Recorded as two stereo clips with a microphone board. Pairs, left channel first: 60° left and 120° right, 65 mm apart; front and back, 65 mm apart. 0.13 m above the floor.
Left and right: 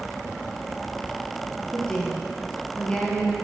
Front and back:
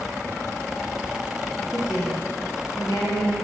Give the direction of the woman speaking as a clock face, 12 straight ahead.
12 o'clock.